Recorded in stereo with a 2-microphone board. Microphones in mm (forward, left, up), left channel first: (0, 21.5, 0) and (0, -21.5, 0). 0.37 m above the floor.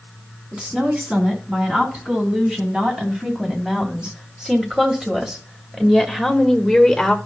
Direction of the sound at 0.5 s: 25° right (ahead or behind).